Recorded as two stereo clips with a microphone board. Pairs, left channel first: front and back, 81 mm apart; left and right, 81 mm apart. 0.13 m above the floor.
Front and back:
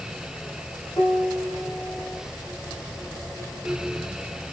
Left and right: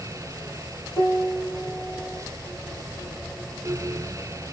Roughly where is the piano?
Ahead left.